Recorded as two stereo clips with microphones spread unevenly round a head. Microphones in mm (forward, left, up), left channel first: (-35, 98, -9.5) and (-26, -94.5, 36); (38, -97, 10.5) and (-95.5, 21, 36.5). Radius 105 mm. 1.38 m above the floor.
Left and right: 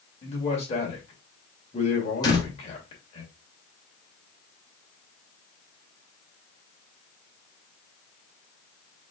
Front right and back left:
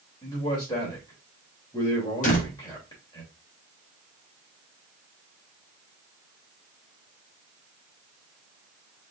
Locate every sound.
0.2 s a man speaking: 30° left, 2.5 m
2.2 s a door slam: 15° left, 1.5 m